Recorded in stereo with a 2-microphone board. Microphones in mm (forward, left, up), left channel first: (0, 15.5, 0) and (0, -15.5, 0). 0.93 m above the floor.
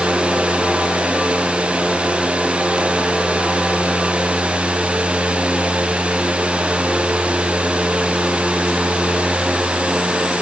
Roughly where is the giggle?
I don't hear a giggle.